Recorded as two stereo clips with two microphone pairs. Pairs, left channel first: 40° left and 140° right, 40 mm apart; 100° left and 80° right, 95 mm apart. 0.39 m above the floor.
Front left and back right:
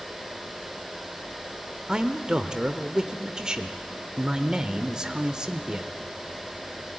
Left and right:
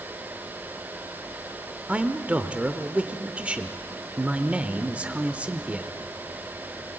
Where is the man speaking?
125° right, 0.8 m.